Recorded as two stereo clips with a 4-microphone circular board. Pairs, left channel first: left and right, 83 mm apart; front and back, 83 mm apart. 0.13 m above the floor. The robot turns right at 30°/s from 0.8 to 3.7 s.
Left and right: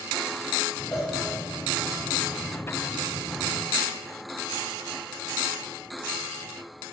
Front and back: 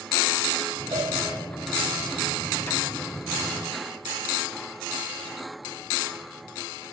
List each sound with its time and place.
0.9 s a cowbell: 170° left, 9.5 m; by 1.1 s 175° left, 9.5 m